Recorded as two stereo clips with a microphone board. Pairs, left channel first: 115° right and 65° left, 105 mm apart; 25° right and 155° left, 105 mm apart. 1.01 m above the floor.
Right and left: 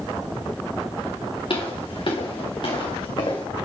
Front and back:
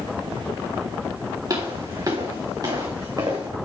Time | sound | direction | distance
1.5 | footsteps | 150° right | 5 m